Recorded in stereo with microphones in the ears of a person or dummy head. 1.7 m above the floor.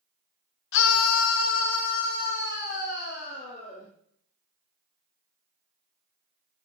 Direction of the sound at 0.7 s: 65° left (ahead or behind).